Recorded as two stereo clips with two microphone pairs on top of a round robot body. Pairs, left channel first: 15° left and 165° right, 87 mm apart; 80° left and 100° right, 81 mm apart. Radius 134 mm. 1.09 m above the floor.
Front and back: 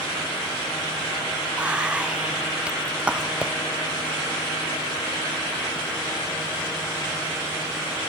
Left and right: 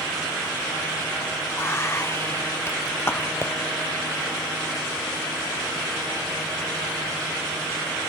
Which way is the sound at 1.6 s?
120° left.